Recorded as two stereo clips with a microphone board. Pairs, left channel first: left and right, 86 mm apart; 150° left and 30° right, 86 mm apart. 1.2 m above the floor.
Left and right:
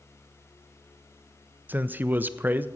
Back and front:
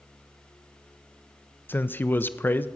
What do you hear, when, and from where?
1.7 s a man speaking: 150° right, 0.5 m